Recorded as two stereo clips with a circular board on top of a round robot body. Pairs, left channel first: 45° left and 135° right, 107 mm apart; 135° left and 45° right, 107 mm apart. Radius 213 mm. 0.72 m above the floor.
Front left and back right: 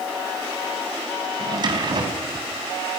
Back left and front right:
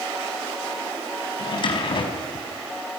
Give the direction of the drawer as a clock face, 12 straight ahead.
6 o'clock.